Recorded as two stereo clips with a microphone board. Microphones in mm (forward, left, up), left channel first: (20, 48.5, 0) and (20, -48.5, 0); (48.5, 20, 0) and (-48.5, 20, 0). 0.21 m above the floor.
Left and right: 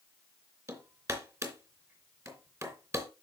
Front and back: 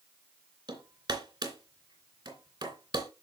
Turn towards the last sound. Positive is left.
turn(degrees=-145)